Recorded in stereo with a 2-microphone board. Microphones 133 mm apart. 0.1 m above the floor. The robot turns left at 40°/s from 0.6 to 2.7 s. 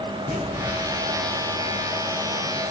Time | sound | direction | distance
0.3 | an explosion | 85° left | 4.5 m